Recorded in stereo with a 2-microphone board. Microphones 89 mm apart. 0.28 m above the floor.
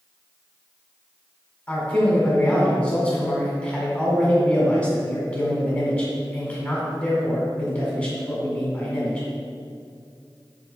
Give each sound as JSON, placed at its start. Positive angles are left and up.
{"t": 1.7, "sound": "a man speaking", "side_deg": 20, "distance_m": 1.6}